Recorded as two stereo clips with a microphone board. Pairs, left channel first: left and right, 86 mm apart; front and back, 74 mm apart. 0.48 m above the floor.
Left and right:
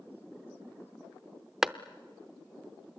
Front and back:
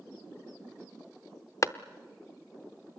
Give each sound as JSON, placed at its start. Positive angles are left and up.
{"t": 1.6, "sound": "a clap", "azimuth_deg": -5, "distance_m": 0.6}